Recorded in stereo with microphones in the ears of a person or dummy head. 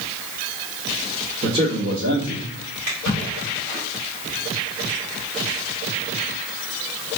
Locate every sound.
1.4 s a man speaking: 60° right (ahead or behind), 1.0 m; by 2.5 s 65° right (ahead or behind), 1.6 m
2.9 s a splash: 80° right, 1.9 m